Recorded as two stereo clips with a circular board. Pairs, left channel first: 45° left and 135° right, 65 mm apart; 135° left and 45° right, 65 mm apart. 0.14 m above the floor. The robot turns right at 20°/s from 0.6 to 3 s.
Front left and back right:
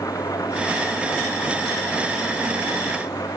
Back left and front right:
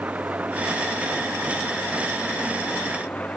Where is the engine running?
20° left; by 3.4 s 65° left.